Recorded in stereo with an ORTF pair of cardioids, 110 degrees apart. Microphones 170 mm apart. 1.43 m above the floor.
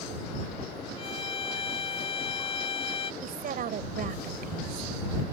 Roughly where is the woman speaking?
Ahead right.